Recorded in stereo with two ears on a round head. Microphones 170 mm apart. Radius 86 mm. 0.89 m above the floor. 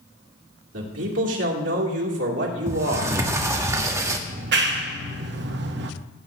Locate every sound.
0.7 s a man speaking: 70° right (ahead or behind), 2.5 m
2.7 s a sliding door: 15° right (ahead or behind), 1.2 m
4.3 s a clap: 60° right (ahead or behind), 1.0 m